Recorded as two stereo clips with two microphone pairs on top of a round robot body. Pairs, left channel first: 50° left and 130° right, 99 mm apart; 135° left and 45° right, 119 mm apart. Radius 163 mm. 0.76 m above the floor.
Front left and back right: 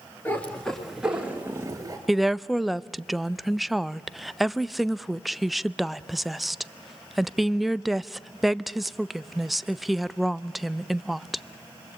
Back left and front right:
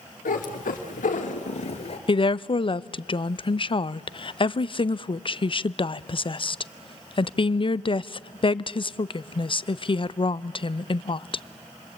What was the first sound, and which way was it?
A cat meowing, 125° left.